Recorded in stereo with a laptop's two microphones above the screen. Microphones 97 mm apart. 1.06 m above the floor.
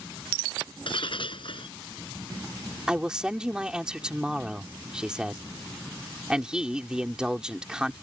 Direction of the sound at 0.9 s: 65° left (ahead or behind).